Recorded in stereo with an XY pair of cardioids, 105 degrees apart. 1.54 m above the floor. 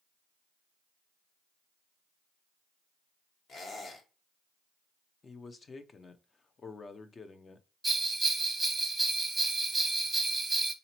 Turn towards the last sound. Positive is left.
turn(degrees=-10)